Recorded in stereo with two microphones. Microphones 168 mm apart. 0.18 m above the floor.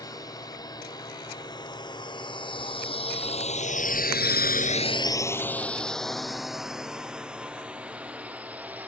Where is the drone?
20° left (ahead or behind); by 8.9 s 10° right (ahead or behind).